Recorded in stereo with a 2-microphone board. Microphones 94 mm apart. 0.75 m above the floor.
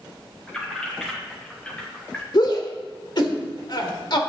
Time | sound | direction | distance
0.5 | keys jangling | 5° left (ahead or behind) | 3.5 m
2.3 | a shout | 50° left (ahead or behind) | 1.9 m